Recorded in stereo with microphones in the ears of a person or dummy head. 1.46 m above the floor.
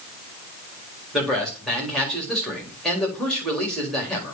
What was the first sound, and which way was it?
A man speaking, 5° left (ahead or behind).